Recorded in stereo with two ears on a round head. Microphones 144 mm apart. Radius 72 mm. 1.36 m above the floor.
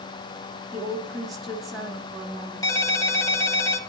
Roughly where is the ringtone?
Left.